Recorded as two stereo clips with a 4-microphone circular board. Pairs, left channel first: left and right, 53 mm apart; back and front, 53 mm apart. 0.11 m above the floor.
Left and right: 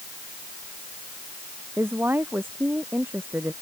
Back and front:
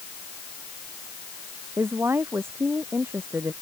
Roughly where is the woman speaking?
Ahead right.